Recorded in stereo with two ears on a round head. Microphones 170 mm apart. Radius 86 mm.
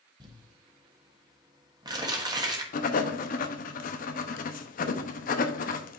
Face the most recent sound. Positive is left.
turn(degrees=45)  # may be behind; listen again after turning